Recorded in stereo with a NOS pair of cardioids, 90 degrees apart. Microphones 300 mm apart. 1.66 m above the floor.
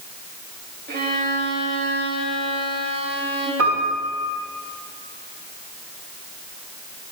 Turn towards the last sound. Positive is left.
turn(degrees=-55)